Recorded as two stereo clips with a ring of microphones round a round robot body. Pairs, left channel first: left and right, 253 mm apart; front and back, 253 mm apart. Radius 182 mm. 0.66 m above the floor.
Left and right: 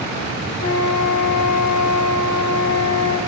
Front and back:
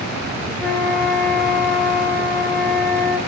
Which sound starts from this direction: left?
A flute, at 0.6 s.